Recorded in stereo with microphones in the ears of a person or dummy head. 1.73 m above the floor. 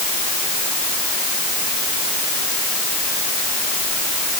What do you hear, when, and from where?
Only background noise.